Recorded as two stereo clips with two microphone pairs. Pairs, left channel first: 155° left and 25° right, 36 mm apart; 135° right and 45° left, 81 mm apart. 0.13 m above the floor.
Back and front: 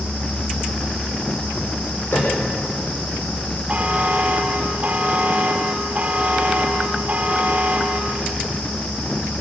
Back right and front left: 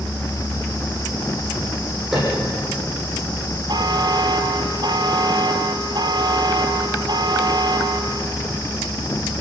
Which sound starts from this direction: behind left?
A piano, at 2.1 s.